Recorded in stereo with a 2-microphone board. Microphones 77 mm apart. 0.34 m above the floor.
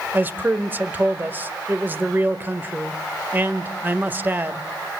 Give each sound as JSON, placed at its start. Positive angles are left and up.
{"t": 0.1, "sound": "a man speaking", "side_deg": -25, "distance_m": 1.1}